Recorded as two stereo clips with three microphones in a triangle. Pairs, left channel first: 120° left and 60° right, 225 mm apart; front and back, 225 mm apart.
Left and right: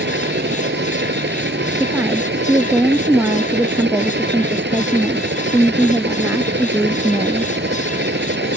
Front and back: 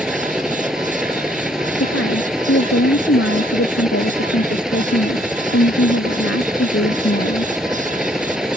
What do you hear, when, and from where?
0.0 s a helicopter: 90° right
1.8 s a woman speaking: 20° left